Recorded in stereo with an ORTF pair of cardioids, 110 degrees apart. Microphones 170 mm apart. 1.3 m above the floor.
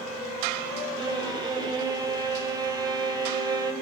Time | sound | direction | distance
1.0 | a violin | 25° right | 1.0 m